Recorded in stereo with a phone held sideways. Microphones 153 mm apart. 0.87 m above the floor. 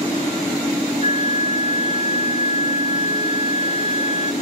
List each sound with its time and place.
1.0 s a flute: 40° right (ahead or behind), 0.8 m